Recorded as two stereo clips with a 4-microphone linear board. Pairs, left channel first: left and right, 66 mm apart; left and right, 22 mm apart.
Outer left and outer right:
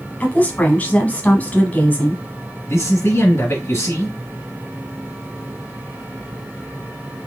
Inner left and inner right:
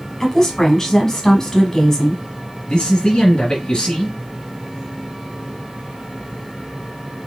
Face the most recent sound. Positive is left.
turn(degrees=35)  # may be behind; listen again after turning